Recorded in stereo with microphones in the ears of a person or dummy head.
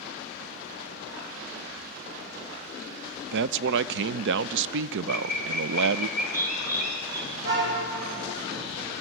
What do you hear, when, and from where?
3.3 s a man speaking: 70° right (ahead or behind), 0.5 m
5.1 s a bird: 45° right (ahead or behind), 3.5 m
7.3 s a car horn: 70° right (ahead or behind), 3.5 m